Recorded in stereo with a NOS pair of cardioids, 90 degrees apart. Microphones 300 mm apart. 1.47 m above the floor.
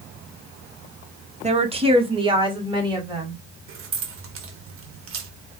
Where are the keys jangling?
50° right, 1.2 m.